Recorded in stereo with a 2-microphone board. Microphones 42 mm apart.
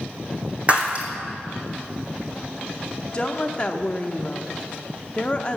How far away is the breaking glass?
About 2.5 m.